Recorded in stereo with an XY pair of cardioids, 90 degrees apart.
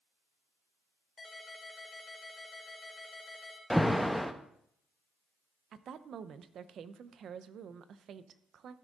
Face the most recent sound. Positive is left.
turn(degrees=-65)